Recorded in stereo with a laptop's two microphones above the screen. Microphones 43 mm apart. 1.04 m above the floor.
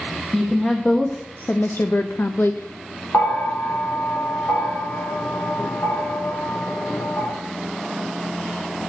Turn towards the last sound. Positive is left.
turn(degrees=60)  # may be behind; listen again after turning